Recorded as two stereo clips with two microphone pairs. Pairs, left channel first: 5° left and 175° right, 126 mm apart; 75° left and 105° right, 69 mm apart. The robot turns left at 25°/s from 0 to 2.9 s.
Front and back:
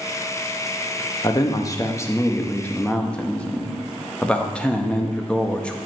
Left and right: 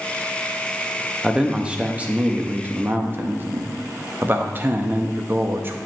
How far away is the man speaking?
About 0.6 m.